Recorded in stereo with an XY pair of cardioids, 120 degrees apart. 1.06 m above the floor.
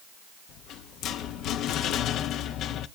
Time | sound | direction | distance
0.5 | a rattle | 70° left | 0.8 m